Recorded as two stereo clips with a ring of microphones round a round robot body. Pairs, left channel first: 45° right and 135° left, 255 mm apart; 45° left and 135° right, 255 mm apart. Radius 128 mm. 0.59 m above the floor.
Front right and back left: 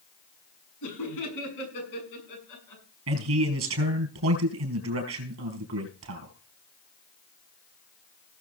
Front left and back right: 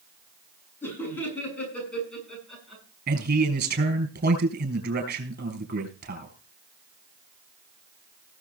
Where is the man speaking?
170° left, 4.5 m.